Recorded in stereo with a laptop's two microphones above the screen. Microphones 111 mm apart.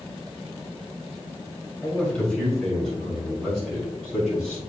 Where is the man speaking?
15° left (ahead or behind), 2 m; by 4.6 s centre (ahead or behind), 5 m.